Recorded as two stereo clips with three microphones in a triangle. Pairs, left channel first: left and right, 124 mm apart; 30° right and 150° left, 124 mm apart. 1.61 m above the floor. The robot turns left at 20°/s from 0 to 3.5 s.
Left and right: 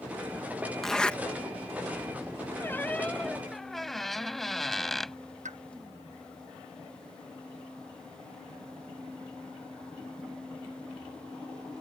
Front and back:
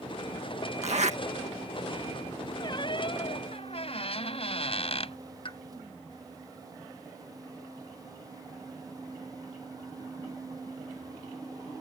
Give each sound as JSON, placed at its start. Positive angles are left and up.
{"t": 0.8, "sound": "a zipper", "azimuth_deg": 175}
{"t": 2.6, "sound": "a squeak", "azimuth_deg": 20}
{"t": 5.5, "sound": "a pop", "azimuth_deg": -75}